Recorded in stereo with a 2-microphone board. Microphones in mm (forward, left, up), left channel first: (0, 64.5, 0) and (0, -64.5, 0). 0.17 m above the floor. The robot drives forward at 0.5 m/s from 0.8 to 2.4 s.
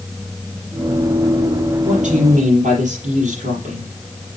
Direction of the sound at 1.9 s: 70° right (ahead or behind).